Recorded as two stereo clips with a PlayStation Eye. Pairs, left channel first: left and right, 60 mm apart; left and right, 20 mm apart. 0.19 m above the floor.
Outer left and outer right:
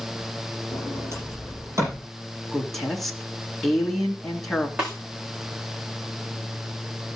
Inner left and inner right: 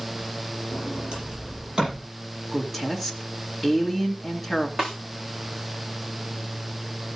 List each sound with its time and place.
0.7 s a sliding door: 50° right (ahead or behind), 8.5 m
2.5 s a woman speaking: 5° left (ahead or behind), 2.5 m
4.8 s a snare drum: 15° right (ahead or behind), 6 m